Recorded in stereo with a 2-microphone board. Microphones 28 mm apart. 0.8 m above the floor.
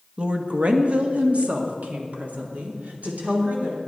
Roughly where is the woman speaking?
Right.